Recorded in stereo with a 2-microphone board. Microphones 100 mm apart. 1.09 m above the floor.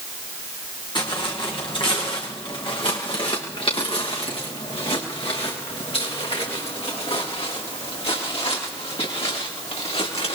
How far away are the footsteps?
About 5 m.